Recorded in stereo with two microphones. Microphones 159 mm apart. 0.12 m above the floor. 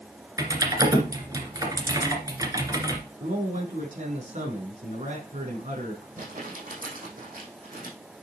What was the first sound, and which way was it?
Typing on a keyboard, 25° right (ahead or behind).